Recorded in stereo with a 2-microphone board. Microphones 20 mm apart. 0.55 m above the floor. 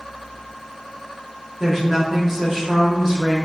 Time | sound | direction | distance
1.6 | a woman speaking | 20° right (ahead or behind) | 0.6 m